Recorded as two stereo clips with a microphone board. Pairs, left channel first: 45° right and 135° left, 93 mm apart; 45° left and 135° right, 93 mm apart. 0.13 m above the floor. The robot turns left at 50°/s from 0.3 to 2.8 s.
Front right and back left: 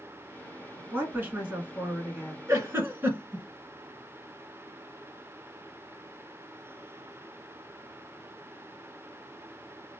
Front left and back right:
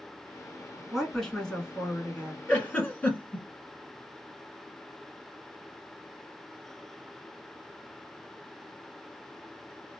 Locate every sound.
0.9 s a woman speaking: 140° left, 1.2 m; by 2.4 s 65° left, 1.2 m
2.5 s a giggle: 115° left, 1.2 m; by 3.5 s 100° left, 1.2 m